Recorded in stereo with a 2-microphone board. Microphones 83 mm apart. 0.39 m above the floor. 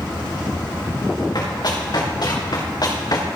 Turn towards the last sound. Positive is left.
turn(degrees=45)  # may be behind; listen again after turning